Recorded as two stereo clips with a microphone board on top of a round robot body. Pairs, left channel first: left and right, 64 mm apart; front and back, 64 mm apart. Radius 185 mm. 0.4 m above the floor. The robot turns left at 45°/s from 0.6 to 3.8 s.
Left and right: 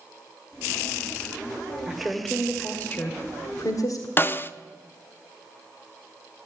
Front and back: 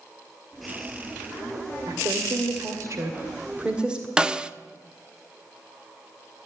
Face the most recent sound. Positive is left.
turn(degrees=115)